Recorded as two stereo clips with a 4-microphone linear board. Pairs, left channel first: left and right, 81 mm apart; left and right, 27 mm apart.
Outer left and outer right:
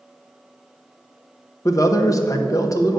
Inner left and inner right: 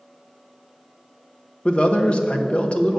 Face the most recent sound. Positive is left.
turn(degrees=45)  # may be behind; listen again after turning